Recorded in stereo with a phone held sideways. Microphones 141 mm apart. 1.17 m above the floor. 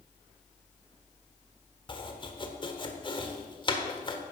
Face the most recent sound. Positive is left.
turn(degrees=35)  # may be behind; listen again after turning